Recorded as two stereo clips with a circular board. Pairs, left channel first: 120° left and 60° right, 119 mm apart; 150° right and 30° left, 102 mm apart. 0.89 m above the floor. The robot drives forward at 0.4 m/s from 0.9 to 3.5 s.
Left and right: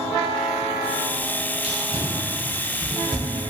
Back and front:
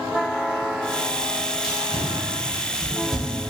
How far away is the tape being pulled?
About 1.0 m.